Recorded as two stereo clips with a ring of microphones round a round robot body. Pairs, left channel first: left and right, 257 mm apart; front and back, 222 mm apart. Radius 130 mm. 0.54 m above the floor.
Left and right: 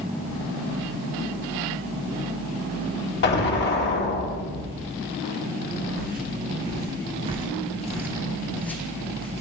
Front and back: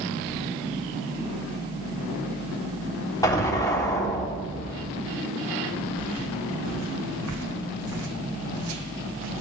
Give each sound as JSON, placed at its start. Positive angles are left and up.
{"t": 3.2, "sound": "an explosion", "azimuth_deg": 70, "distance_m": 1.7}
{"t": 6.0, "sound": "footsteps", "azimuth_deg": -145, "distance_m": 3.0}